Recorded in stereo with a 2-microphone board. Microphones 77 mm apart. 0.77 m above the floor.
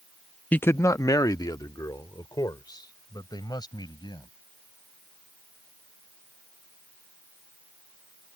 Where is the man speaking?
20° left (ahead or behind); by 4.3 s 65° left (ahead or behind).